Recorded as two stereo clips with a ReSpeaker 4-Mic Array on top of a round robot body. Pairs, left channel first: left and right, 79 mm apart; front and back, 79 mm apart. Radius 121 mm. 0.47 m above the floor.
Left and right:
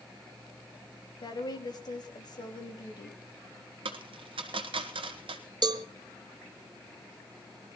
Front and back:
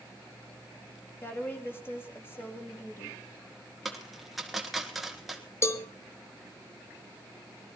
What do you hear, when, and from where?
1.2 s a woman speaking: 60° left, 4 m
3.9 s a dropped coin: 90° right, 1.5 m
5.6 s a cowbell: 55° right, 1.0 m